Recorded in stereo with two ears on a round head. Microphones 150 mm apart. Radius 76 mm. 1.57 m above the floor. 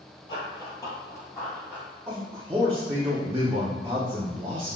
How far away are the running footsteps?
About 1.7 m.